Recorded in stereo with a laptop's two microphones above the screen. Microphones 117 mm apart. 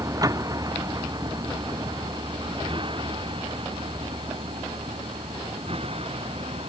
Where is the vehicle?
30° right (ahead or behind); by 6.7 s 55° right (ahead or behind).